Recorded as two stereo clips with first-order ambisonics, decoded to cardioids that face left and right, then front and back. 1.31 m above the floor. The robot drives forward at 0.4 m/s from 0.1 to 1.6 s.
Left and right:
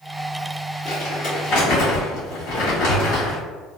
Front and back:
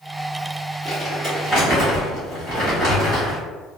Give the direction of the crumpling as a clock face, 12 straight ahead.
8 o'clock.